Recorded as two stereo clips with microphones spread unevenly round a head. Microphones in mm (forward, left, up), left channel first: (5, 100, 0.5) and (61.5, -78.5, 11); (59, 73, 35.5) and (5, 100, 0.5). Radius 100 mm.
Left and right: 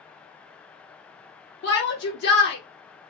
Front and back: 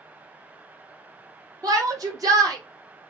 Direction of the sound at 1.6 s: 145° left.